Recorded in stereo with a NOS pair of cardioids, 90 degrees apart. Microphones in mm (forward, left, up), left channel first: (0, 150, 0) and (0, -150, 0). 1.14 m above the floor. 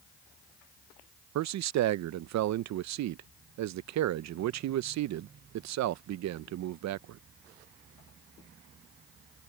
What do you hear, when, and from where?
1.4 s a man speaking: 65° right